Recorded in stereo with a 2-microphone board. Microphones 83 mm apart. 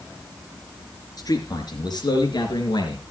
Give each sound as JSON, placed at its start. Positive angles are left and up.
{"t": 1.2, "sound": "a man speaking", "side_deg": 55, "distance_m": 4.0}